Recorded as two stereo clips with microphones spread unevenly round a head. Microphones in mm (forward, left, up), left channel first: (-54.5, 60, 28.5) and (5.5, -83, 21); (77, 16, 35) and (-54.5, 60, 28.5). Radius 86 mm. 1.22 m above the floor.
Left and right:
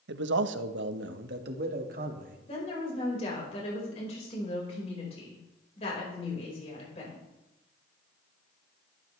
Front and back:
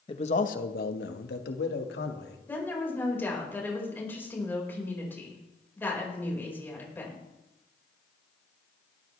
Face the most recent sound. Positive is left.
turn(degrees=55)